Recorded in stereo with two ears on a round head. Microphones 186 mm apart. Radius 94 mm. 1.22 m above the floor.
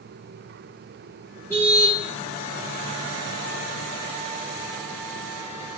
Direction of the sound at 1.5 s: 10° left (ahead or behind).